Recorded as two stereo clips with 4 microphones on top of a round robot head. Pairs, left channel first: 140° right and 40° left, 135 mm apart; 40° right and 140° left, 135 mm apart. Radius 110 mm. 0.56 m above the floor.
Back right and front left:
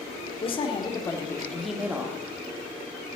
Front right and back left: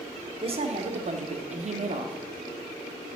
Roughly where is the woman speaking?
Behind.